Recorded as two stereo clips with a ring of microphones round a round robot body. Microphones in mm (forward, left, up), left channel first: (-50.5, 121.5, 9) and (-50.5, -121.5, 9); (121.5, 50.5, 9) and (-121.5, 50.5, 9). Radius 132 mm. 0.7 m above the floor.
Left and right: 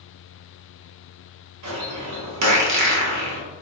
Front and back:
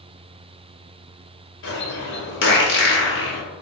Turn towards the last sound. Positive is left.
turn(degrees=-55)